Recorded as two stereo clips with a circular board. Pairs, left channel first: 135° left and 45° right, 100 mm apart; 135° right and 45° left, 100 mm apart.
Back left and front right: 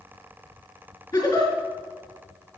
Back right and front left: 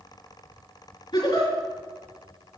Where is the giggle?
Straight behind, 4.5 m.